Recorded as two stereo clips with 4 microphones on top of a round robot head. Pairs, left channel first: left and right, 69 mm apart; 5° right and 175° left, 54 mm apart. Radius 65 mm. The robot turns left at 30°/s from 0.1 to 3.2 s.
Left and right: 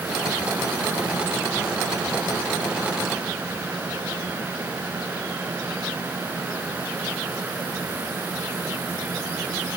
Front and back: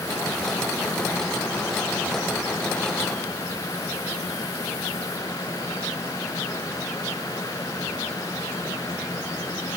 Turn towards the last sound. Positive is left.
No sound to turn to.